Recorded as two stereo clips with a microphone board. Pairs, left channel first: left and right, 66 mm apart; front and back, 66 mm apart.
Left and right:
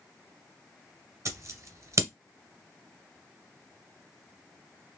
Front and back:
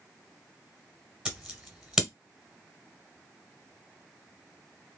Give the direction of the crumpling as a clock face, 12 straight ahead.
No crumpling in this recording.